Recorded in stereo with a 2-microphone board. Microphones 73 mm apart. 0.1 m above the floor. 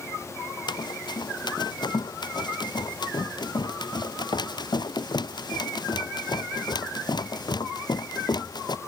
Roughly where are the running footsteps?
Left.